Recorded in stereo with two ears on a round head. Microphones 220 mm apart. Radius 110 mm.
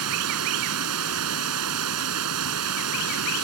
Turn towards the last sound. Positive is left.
turn(degrees=-70)  # may be behind; listen again after turning